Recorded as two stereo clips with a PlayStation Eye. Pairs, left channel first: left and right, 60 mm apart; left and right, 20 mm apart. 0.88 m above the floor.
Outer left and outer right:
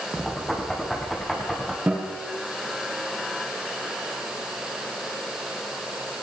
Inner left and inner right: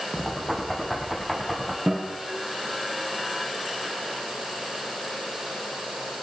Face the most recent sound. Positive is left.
turn(degrees=-20)  # may be behind; listen again after turning